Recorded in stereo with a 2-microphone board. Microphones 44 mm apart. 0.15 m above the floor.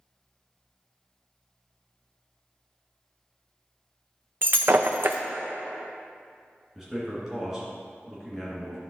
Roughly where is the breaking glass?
Right.